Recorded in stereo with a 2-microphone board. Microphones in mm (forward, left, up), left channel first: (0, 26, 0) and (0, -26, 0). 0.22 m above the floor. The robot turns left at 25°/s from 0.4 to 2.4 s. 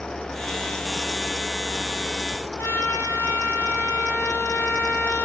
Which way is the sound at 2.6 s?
70° left (ahead or behind).